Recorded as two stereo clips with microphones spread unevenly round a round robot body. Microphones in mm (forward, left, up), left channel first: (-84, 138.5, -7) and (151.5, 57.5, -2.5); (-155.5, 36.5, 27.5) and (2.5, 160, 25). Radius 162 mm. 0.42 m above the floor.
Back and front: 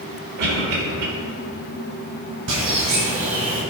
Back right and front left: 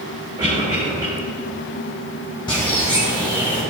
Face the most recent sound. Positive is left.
turn(degrees=-70)